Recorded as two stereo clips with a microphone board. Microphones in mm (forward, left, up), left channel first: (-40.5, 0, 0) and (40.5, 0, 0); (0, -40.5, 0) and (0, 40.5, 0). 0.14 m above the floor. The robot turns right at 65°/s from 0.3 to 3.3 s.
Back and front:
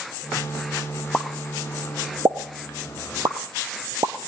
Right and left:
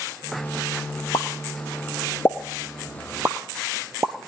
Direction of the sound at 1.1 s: 105° right.